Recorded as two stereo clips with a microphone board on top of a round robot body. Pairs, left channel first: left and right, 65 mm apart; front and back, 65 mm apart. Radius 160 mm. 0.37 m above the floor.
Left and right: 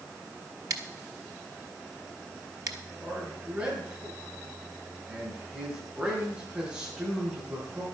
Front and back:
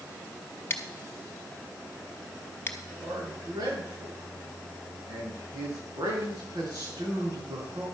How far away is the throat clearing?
I don't hear throat clearing.